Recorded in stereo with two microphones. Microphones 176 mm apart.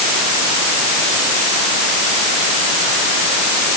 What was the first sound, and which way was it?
Only background noise.